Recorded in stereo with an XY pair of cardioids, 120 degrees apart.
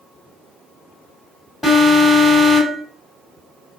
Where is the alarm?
15° left, 2.5 m.